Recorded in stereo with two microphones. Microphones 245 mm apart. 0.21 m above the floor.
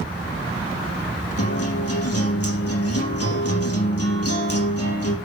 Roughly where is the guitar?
Left.